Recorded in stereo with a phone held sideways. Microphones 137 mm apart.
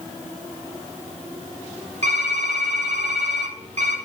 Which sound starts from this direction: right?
Typing on a keyboard, at 2.0 s.